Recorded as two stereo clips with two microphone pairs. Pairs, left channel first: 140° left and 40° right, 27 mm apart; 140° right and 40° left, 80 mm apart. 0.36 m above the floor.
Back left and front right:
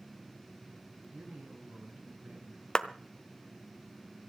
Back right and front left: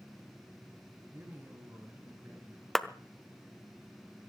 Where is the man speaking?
20° right, 4.5 m.